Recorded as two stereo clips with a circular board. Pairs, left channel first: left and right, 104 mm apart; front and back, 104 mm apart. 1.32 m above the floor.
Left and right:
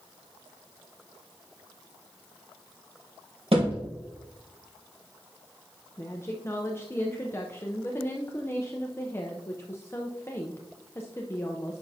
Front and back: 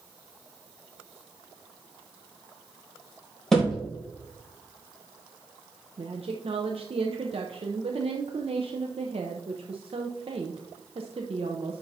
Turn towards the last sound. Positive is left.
turn(degrees=155)